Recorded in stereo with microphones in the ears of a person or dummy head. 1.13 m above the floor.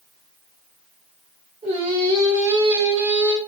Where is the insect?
No insect in this recording.